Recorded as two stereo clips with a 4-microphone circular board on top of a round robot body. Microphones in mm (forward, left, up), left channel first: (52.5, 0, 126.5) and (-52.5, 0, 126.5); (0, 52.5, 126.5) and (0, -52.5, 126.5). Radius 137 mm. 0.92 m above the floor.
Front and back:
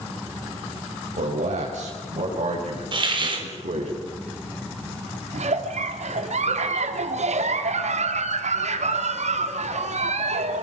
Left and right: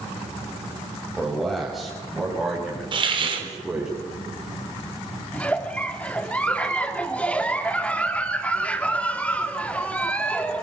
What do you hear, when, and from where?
1.2 s a man speaking: straight behind, 5.5 m; by 3.9 s 175° right, 8.5 m
2.9 s a hiss: 135° right, 4 m
5.3 s a giggle: 170° left, 2 m